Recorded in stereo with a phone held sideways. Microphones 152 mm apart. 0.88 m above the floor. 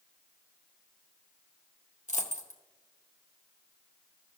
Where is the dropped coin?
50° left (ahead or behind), 0.9 m.